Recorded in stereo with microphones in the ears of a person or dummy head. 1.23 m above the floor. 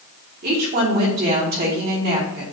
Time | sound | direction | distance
0.4 | a woman speaking | 50° right (ahead or behind) | 2 m